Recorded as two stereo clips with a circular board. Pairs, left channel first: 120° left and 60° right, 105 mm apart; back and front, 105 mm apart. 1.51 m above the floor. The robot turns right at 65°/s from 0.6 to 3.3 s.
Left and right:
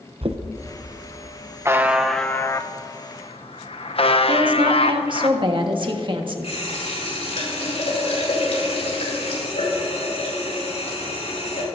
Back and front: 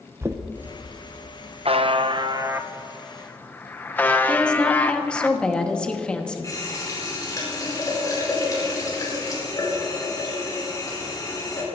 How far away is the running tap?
About 4.5 m.